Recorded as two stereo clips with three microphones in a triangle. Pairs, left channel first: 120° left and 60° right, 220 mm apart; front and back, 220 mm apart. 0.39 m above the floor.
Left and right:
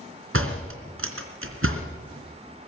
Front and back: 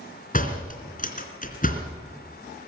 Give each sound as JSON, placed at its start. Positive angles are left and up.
{"t": 0.3, "sound": "a door slam", "azimuth_deg": -50, "distance_m": 3.0}